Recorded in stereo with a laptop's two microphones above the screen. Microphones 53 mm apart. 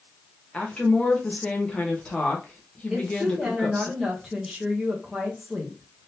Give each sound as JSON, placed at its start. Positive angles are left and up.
{"t": 0.5, "sound": "a woman speaking", "side_deg": 20, "distance_m": 0.9}
{"t": 2.9, "sound": "a woman speaking", "side_deg": -5, "distance_m": 0.9}